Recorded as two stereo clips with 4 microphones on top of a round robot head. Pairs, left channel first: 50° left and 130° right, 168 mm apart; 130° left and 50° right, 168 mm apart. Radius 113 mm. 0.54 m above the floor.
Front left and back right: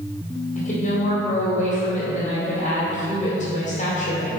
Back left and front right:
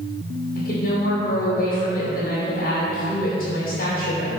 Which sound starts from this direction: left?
A woman speaking, at 0.6 s.